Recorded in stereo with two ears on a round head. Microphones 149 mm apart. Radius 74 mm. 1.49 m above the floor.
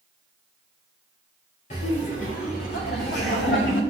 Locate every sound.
1.7 s laughter: 45° left (ahead or behind), 4 m; by 3.8 s 80° left, 4.5 m